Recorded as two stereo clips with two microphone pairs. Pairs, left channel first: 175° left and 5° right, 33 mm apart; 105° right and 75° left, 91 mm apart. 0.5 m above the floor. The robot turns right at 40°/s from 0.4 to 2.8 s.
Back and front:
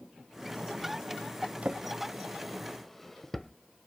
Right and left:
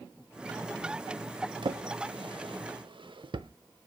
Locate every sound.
1.6 s a drawer: 45° left, 0.6 m; by 3.5 s 95° left, 0.6 m